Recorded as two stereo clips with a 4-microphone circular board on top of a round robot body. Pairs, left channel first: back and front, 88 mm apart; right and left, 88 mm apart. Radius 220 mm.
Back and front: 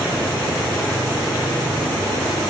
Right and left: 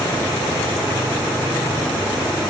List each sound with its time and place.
Only background noise.